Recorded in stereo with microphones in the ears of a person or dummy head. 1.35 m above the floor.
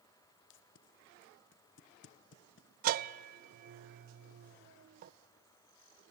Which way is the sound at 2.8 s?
45° right (ahead or behind).